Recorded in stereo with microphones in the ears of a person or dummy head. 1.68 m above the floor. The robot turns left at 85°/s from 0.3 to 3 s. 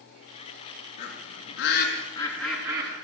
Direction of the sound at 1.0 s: 50° left (ahead or behind).